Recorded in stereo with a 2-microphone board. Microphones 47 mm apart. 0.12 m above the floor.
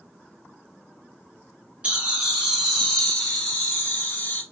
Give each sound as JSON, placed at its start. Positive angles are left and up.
{"t": 1.8, "sound": "laughter", "side_deg": -25, "distance_m": 1.3}